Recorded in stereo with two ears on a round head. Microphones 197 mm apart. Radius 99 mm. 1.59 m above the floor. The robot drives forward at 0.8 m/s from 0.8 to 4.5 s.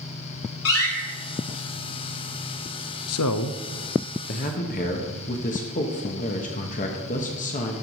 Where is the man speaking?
70° left (ahead or behind), 0.7 m; by 7.7 s 35° left (ahead or behind), 1.1 m.